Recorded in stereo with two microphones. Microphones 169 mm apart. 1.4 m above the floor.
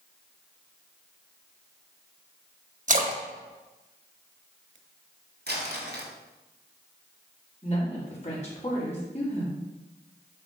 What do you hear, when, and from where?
2.9 s a splash: 50° right (ahead or behind), 1.1 m
5.5 s crumpling: 80° right, 2 m
7.6 s a woman speaking: 40° left (ahead or behind), 3.5 m